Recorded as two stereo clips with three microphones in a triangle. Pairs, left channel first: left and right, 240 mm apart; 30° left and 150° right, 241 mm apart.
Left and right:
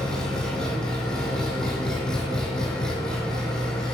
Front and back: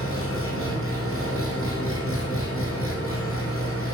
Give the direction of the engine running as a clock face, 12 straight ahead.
12 o'clock.